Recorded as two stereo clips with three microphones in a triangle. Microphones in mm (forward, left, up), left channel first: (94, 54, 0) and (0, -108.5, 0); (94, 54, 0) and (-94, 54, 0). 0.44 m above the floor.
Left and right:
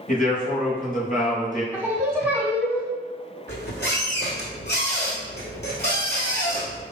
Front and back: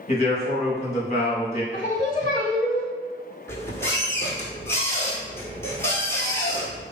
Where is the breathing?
No breathing in this recording.